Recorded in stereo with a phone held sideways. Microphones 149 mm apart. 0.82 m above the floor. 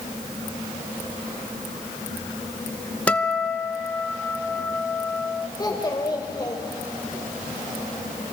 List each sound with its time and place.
3.1 s a guitar: 10° left (ahead or behind), 0.7 m
5.6 s a child speaking: 25° left (ahead or behind), 2.5 m